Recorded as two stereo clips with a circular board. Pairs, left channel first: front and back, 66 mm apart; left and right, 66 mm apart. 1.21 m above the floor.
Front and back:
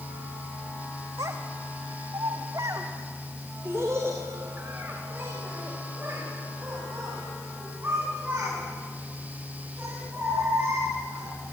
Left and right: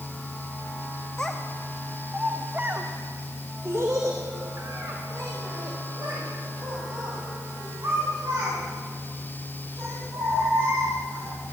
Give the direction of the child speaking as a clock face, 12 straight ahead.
6 o'clock.